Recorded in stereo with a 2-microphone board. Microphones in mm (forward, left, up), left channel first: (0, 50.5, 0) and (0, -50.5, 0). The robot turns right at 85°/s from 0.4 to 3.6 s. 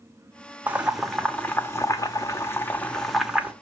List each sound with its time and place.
0.7 s boiling: 15° right (ahead or behind), 0.9 m